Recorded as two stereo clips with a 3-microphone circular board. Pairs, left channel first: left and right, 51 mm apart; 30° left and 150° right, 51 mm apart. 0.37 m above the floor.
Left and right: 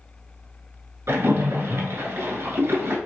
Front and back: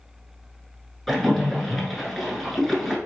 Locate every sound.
1.1 s a splash: 55° right, 1.0 m